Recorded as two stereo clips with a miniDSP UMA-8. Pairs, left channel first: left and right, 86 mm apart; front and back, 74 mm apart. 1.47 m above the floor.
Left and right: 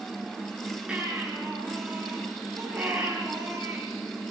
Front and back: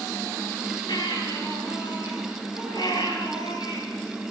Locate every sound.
0.9 s a baby crying: 10° right, 9.5 m